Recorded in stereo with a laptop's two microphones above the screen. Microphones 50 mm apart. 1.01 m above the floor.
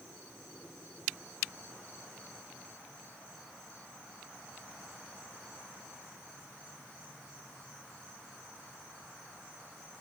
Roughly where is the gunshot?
I don't hear a gunshot.